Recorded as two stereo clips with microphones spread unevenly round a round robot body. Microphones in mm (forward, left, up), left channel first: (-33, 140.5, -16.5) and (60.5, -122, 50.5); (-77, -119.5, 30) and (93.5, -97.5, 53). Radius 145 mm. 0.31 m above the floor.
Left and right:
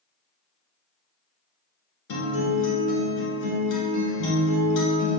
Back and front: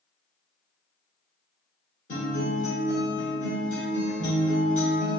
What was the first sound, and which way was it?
A guitar, 130° left.